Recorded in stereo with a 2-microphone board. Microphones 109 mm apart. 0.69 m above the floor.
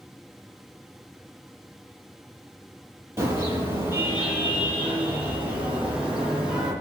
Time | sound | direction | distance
3.2 | a car horn | 20° right (ahead or behind) | 8 m